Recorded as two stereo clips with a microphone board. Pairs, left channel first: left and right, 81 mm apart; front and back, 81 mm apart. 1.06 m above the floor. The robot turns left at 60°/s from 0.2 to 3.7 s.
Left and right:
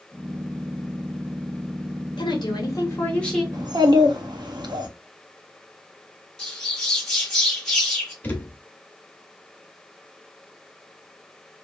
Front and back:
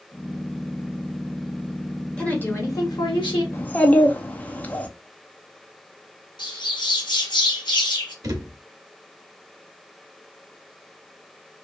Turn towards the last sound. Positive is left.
turn(degrees=155)